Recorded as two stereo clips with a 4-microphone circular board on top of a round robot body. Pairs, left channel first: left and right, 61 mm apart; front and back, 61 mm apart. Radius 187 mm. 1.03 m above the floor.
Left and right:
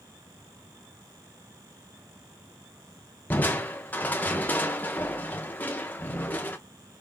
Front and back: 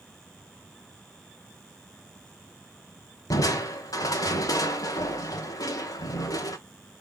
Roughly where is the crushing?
Ahead left.